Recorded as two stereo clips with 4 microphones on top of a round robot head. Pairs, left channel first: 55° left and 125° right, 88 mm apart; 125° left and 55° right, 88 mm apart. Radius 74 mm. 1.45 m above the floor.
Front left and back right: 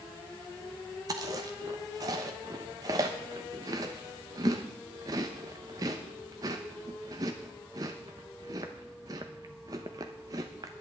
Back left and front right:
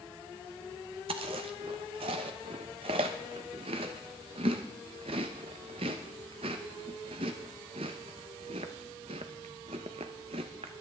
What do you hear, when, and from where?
1.1 s chewing: 75° right, 0.8 m